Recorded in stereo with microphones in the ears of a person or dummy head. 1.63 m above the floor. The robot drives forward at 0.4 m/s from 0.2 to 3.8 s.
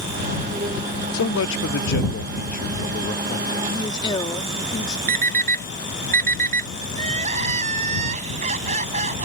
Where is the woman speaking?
25° left (ahead or behind).